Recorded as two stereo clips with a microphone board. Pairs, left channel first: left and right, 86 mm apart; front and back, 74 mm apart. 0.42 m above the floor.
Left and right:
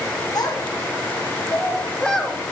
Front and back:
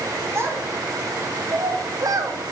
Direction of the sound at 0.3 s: 125° left.